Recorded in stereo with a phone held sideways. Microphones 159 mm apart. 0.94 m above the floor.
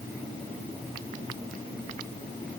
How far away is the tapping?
No tapping in this recording.